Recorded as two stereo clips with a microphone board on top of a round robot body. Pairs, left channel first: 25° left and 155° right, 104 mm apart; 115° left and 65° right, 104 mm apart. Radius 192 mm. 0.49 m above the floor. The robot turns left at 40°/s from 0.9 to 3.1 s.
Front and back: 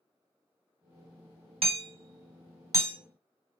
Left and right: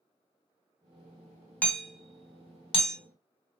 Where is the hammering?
170° right, 1.8 m; by 3.0 s 140° left, 1.8 m.